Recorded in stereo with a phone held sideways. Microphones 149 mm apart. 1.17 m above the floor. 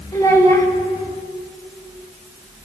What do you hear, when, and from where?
0.1 s a child speaking: 20° left (ahead or behind), 2 m